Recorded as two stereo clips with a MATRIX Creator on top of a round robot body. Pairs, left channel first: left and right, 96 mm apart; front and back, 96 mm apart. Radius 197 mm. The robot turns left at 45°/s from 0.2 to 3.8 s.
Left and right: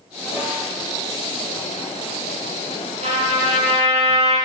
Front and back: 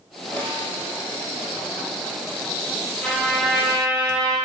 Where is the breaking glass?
I don't hear breaking glass.